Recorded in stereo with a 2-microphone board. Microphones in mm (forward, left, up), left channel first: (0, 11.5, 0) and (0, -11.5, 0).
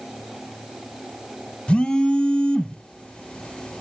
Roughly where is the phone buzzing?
Left.